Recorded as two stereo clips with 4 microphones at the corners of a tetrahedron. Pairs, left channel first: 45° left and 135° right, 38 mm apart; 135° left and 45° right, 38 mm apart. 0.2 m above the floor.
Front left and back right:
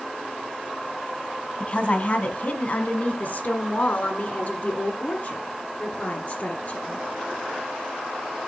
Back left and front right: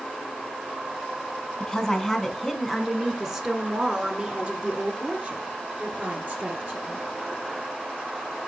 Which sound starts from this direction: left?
A woman speaking, at 1.6 s.